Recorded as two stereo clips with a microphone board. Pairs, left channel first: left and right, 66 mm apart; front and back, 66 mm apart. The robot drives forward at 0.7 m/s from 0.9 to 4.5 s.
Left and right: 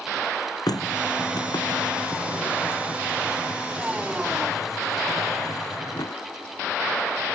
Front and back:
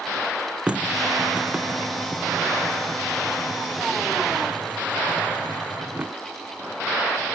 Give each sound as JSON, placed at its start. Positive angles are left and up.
{"t": 0.7, "sound": "a running tap", "azimuth_deg": 105}